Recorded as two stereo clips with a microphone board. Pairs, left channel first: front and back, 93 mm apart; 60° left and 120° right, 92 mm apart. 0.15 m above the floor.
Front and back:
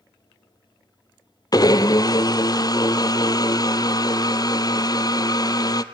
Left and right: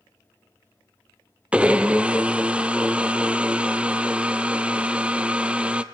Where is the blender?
45° right, 0.6 m.